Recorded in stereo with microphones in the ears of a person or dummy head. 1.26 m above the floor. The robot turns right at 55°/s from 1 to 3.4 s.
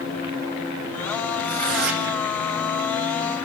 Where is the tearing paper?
140° right, 3.5 m; by 2.2 s 100° right, 3.5 m.